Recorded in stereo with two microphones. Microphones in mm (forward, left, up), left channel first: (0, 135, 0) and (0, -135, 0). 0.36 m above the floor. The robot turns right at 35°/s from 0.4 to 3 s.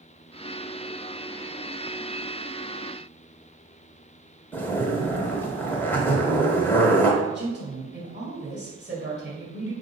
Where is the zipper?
10° left (ahead or behind), 1.0 m.